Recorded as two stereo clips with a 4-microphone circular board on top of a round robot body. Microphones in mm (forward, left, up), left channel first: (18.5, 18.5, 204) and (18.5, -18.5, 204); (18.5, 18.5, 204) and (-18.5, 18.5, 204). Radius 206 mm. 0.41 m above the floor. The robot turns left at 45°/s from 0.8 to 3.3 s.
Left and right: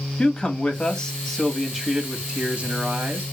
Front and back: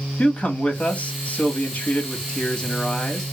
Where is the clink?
I don't hear a clink.